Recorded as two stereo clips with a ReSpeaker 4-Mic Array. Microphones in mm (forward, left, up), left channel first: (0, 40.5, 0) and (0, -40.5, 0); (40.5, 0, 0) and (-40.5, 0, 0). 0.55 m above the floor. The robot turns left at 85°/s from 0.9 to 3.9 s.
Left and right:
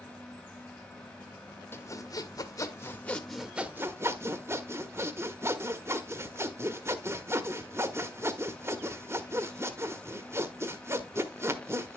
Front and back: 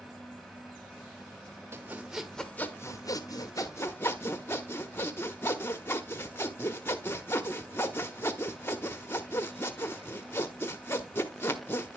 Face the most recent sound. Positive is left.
turn(degrees=-50)